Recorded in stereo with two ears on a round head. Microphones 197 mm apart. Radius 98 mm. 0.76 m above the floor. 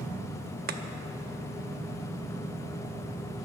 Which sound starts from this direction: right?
Chopping, at 0.7 s.